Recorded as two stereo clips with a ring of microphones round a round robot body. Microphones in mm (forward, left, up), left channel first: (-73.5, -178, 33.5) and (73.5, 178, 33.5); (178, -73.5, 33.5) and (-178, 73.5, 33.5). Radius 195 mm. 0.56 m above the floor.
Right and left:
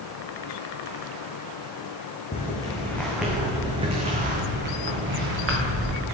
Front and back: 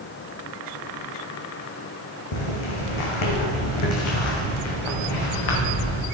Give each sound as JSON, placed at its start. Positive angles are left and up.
{"t": 2.3, "sound": "footsteps", "azimuth_deg": -40, "distance_m": 1.6}